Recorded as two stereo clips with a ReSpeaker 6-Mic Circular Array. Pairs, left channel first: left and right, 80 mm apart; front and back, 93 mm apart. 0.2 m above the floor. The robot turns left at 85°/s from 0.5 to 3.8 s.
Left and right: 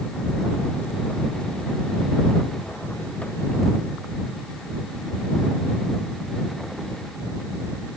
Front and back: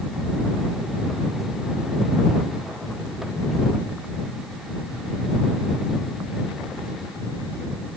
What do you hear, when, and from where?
Only background noise.